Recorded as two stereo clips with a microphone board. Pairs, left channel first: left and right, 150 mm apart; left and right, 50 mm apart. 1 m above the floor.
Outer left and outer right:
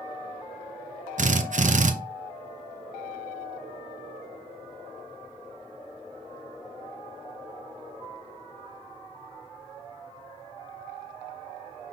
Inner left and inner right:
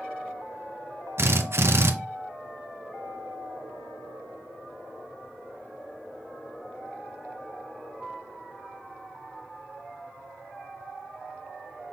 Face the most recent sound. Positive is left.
turn(degrees=-55)  # may be behind; listen again after turning